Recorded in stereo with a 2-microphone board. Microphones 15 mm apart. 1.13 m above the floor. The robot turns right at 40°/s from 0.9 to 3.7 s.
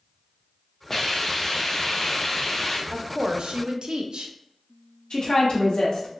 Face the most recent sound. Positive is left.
turn(degrees=75)  # may be behind; listen again after turning